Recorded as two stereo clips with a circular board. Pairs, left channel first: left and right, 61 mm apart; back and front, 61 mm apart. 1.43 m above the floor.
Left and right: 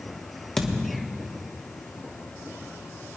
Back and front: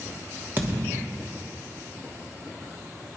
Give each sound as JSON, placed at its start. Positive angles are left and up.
{"t": 0.6, "sound": "a thud", "azimuth_deg": 15, "distance_m": 1.0}